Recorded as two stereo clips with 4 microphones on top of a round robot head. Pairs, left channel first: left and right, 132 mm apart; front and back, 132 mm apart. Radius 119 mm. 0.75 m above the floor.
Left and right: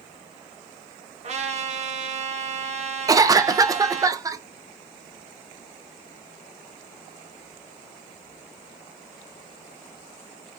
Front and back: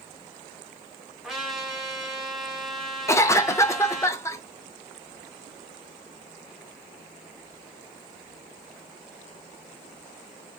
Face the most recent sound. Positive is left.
turn(degrees=-50)